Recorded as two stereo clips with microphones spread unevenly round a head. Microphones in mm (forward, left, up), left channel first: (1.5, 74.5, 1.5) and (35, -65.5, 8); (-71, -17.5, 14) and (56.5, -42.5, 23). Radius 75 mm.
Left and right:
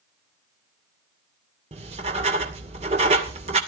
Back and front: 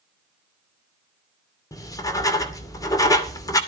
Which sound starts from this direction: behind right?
Writing, at 1.7 s.